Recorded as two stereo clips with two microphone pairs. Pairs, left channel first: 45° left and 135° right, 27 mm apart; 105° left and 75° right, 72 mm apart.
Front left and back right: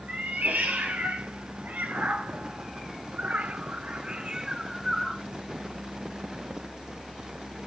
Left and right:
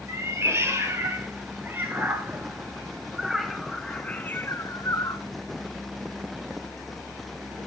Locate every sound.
0.1 s a cat meowing: 125° right, 2.5 m; by 5.2 s 140° left, 0.9 m